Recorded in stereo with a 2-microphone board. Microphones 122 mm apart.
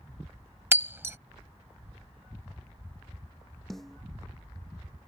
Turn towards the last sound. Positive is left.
turn(degrees=0)  # may be behind; listen again after turning